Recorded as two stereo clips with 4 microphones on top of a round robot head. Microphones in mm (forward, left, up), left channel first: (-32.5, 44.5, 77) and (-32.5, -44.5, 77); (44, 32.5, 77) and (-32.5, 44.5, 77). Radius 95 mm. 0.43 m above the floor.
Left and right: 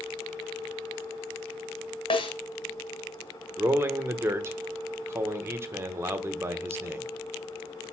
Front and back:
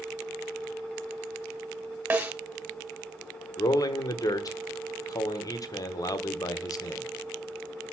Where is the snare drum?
100° left, 3 m.